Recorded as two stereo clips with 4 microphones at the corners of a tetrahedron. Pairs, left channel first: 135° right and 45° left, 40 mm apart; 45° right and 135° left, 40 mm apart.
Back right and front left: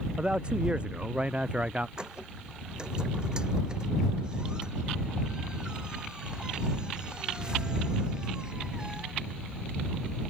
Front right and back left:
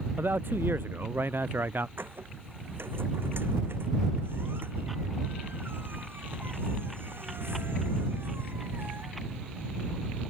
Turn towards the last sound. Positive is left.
turn(degrees=115)